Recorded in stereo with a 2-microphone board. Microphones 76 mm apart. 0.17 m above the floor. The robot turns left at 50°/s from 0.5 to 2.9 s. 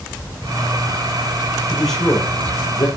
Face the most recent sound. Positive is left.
turn(degrees=125)